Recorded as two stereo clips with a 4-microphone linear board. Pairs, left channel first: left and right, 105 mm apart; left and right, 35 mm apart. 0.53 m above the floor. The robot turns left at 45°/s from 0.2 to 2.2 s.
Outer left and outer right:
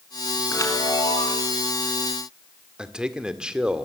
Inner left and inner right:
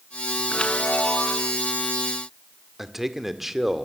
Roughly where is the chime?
Behind left.